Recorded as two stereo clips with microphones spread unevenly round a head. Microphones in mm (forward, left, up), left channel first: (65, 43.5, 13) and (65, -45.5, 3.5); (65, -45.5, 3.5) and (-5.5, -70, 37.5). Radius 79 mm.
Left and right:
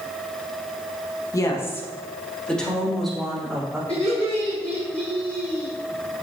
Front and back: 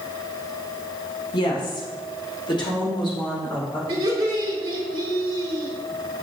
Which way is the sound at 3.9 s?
170° left.